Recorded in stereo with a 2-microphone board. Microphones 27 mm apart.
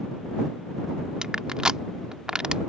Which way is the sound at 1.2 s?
30° right (ahead or behind).